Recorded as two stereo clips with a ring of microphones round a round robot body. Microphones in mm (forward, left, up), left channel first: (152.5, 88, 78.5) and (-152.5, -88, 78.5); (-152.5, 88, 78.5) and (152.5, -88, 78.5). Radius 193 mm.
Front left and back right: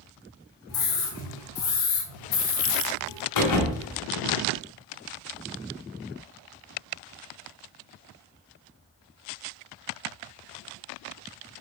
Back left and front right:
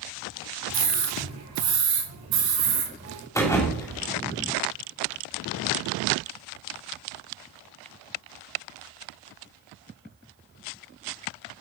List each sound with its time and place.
0.7 s a scream: 20° right, 3.5 m
3.4 s a thud: 70° left, 2 m